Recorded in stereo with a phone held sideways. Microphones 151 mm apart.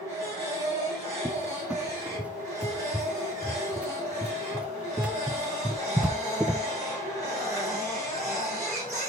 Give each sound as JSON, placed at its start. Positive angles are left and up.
{"t": 0.0, "sound": "a machine running", "side_deg": 20, "distance_m": 6.0}
{"t": 1.2, "sound": "a cupboard door", "side_deg": -10, "distance_m": 0.5}